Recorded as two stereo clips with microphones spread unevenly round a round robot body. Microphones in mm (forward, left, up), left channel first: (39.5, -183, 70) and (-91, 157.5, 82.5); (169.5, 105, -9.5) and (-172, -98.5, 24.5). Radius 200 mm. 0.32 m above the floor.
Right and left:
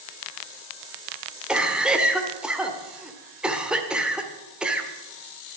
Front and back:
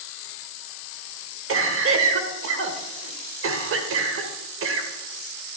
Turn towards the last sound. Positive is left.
turn(degrees=-160)